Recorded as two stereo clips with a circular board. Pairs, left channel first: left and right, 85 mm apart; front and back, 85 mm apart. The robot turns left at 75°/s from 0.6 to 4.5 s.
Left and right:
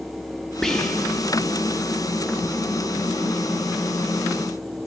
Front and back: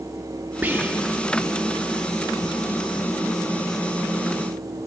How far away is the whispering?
About 0.7 m.